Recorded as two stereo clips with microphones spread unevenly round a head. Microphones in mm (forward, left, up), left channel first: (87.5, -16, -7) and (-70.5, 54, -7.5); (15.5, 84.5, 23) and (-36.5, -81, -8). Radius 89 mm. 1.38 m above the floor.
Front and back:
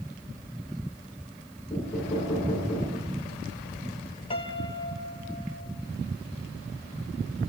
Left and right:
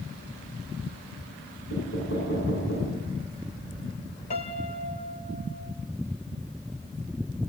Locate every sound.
1.7 s knocking: 50° left, 9.5 m
4.3 s a piano: 30° left, 1.9 m